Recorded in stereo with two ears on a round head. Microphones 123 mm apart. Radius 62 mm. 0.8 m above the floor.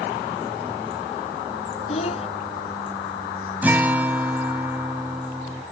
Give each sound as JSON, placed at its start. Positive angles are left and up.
{"t": 1.9, "sound": "a child speaking", "side_deg": 50}
{"t": 3.6, "sound": "a guitar", "side_deg": -15}